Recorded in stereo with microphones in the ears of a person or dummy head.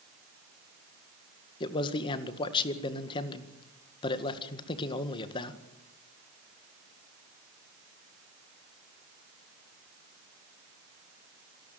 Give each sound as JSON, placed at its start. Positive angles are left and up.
{"t": 1.6, "sound": "a man speaking", "side_deg": 30, "distance_m": 1.8}